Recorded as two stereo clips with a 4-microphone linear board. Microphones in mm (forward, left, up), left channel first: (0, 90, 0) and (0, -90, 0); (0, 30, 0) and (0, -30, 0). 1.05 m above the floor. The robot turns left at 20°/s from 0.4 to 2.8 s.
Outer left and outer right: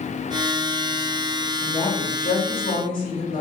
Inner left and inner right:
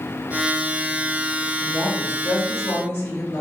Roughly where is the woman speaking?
Left.